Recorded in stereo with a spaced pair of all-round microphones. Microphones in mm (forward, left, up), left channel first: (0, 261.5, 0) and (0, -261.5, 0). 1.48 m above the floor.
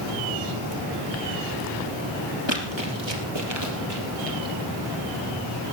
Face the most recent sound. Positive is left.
turn(degrees=-45)  # may be behind; listen again after turning